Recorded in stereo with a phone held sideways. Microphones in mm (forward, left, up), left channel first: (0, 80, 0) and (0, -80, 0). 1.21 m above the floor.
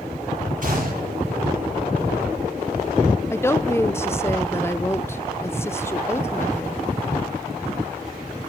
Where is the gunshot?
60° right (ahead or behind), 9 m.